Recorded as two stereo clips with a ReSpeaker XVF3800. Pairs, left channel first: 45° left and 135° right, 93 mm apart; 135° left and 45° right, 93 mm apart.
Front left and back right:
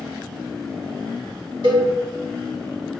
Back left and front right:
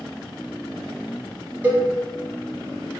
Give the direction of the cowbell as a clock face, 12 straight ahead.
4 o'clock.